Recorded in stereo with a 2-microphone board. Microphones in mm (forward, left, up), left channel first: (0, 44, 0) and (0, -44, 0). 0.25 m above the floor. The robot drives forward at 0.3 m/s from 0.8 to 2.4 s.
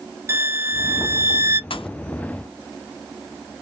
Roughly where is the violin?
Right.